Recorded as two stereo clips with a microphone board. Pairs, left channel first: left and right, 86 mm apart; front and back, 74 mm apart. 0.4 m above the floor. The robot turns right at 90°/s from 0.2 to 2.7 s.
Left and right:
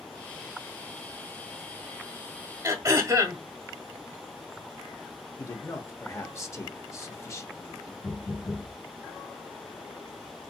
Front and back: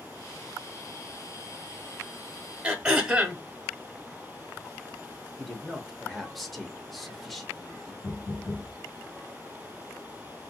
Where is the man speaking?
85° left, 0.9 m.